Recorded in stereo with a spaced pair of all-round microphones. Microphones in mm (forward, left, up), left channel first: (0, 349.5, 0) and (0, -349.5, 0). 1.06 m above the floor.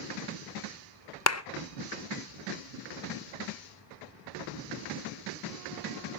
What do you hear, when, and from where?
1.3 s a clap: 25° left (ahead or behind), 0.6 m